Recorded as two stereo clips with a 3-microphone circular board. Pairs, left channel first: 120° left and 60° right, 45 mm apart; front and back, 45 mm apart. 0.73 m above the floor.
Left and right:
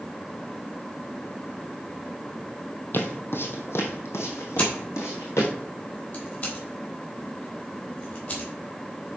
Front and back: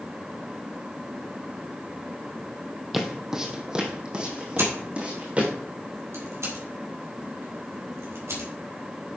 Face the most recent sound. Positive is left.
turn(degrees=170)